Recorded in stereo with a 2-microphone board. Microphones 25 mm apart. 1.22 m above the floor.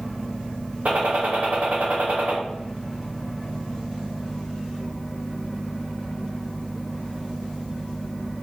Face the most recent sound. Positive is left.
turn(degrees=-70)  # may be behind; listen again after turning